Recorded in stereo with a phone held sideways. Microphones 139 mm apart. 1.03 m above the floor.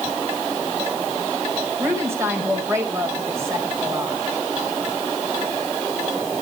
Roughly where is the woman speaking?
Centre.